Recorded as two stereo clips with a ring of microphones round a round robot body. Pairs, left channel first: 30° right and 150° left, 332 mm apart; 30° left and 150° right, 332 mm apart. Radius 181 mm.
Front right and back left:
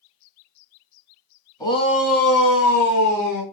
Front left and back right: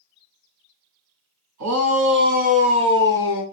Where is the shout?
110° right, 3 m; by 3.4 s 65° right, 4 m.